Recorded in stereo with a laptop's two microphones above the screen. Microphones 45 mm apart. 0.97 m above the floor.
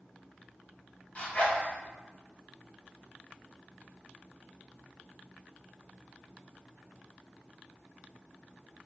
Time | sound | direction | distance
1.1 | a zipper | 30° left (ahead or behind) | 0.8 m